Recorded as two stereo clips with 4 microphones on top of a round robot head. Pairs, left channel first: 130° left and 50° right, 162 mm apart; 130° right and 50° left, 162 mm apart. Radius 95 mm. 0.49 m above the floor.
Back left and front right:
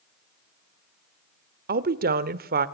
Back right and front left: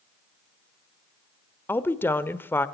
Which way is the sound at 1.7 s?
55° right.